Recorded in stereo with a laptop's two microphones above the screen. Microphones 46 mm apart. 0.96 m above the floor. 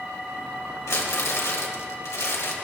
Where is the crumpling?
85° left, 1.0 m.